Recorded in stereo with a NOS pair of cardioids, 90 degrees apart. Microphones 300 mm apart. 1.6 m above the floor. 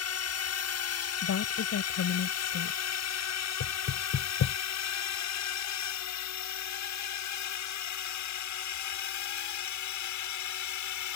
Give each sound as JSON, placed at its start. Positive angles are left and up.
{"t": 0.0, "sound": "a drone", "azimuth_deg": 55}
{"t": 1.2, "sound": "a woman speaking", "azimuth_deg": 55}
{"t": 3.6, "sound": "knocking", "azimuth_deg": 55}